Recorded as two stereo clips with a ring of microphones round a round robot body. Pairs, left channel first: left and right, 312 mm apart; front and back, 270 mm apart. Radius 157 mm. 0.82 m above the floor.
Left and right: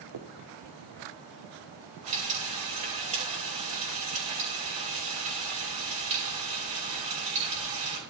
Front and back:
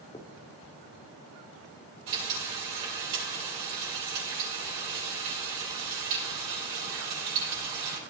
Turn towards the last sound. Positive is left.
turn(degrees=-160)